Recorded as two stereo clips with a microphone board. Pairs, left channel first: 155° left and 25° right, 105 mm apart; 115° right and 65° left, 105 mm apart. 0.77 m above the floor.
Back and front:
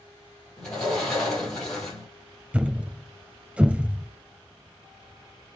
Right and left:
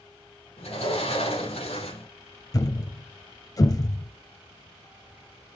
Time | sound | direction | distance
0.6 | a sliding door | 120° right | 5 m
2.5 | a thud | 95° right | 0.6 m